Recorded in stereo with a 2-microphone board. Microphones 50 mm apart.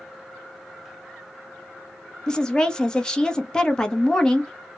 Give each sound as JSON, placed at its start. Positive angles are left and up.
{"t": 2.3, "sound": "a woman speaking", "side_deg": 15, "distance_m": 0.8}